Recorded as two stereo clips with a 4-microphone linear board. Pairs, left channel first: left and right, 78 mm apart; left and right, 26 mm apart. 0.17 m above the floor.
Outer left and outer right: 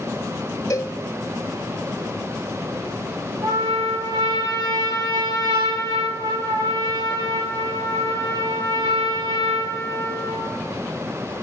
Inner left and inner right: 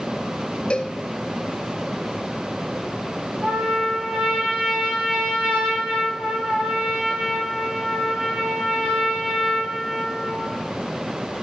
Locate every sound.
0.7 s a cowbell: 45° left (ahead or behind), 0.5 m
3.4 s a trumpet: 55° right (ahead or behind), 4.5 m